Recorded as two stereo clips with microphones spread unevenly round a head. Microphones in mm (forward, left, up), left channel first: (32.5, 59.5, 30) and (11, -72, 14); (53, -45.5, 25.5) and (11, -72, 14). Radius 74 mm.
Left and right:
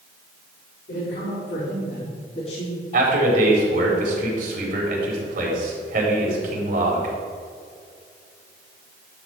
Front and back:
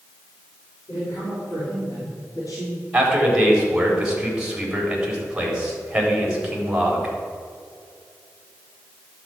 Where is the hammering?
No hammering in this recording.